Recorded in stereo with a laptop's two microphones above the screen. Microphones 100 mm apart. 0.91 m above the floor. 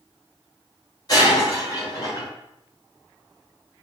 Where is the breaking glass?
40° left (ahead or behind), 1.4 m.